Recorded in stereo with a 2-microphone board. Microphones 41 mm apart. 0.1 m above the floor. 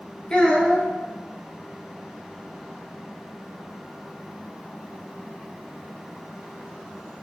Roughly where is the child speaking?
Left.